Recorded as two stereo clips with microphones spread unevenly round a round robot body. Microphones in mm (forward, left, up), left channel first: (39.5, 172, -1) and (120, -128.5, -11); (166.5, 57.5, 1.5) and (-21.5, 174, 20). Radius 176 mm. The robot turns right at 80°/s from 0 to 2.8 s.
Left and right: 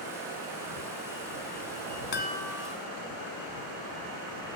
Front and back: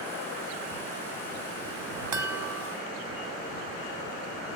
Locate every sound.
2.1 s a chime: 165° left; by 2.8 s 145° right